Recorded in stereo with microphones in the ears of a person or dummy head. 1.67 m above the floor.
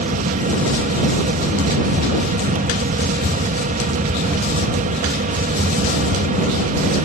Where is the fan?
45° right (ahead or behind).